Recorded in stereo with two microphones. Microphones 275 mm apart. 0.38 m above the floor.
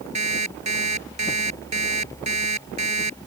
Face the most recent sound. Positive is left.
turn(degrees=-85)